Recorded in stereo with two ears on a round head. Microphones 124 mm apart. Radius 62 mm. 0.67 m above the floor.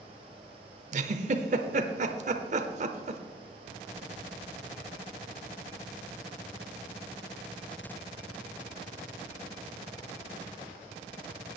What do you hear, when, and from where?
0.9 s a giggle: 55° right (ahead or behind), 0.9 m